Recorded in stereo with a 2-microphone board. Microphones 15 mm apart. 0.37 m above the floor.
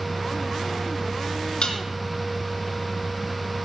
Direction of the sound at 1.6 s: 65° left (ahead or behind).